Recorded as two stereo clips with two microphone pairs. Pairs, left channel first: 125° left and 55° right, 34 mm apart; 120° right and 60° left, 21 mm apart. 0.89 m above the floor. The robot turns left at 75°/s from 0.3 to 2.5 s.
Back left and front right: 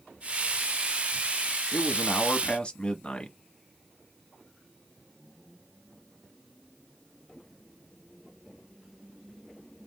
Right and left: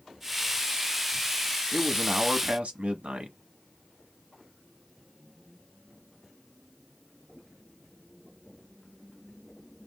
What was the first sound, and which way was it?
A man speaking, 125° left.